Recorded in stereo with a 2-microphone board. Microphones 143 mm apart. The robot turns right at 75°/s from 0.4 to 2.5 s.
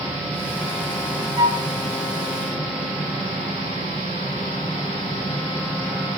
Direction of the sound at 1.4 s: 25° right (ahead or behind).